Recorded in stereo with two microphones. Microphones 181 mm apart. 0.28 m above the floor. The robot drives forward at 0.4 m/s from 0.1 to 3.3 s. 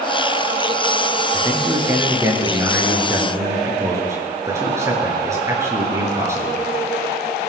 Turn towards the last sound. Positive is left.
turn(degrees=-15)  # may be behind; listen again after turning